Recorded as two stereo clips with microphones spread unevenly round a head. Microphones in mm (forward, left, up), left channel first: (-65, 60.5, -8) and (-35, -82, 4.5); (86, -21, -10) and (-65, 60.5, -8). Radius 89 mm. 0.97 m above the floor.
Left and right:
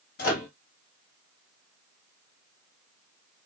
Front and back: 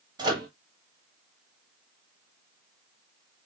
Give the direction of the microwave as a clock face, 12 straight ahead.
9 o'clock.